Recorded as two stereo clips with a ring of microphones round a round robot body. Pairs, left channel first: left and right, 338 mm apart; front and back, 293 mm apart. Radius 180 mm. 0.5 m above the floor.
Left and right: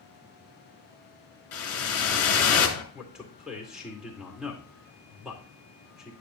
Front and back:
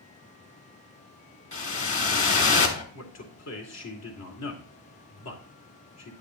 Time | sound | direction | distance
1.5 | a whoosh | 45° left | 2.5 m
2.9 | a man speaking | 5° right | 2 m